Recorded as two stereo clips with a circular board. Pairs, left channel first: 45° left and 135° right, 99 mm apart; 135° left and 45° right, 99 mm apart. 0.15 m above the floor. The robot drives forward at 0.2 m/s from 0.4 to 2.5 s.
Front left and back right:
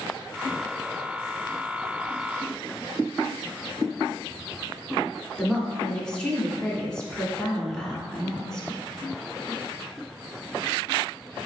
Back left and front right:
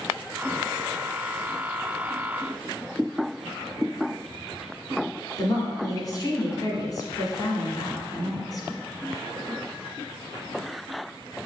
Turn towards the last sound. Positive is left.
turn(degrees=125)